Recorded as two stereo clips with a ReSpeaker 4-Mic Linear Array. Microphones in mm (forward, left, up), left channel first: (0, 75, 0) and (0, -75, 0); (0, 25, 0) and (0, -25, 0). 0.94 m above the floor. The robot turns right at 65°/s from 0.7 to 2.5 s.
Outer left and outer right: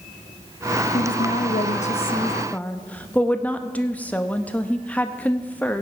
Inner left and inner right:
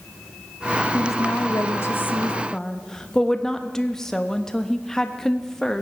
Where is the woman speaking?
70° left, 0.8 m; by 5.8 s 170° left, 0.8 m.